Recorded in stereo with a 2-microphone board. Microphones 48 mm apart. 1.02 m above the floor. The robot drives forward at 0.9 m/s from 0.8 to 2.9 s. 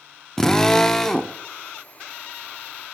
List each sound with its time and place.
0.4 s a drill: 10° left (ahead or behind), 0.6 m; by 1.4 s 5° left (ahead or behind), 0.9 m